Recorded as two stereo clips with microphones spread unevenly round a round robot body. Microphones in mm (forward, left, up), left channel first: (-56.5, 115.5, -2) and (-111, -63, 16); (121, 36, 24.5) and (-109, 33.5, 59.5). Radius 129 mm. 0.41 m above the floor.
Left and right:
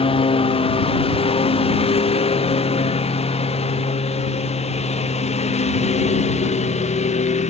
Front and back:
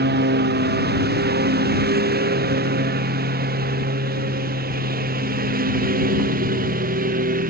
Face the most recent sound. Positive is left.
turn(degrees=125)